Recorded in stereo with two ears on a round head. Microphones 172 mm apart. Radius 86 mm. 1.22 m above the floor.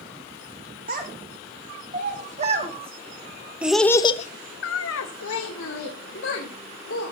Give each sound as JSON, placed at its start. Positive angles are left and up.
{"t": 0.9, "sound": "a child speaking", "side_deg": -45, "distance_m": 3.5}